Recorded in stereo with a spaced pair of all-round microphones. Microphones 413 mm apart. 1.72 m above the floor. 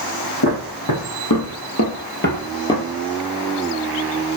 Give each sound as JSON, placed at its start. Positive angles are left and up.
{"t": 0.4, "sound": "footsteps", "side_deg": 65, "distance_m": 4.0}